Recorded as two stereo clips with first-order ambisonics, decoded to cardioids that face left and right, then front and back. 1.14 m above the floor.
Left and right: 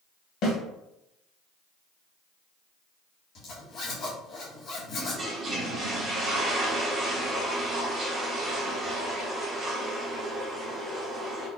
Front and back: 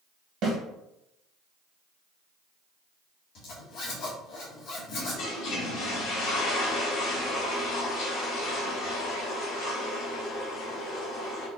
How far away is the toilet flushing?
About 1.5 m.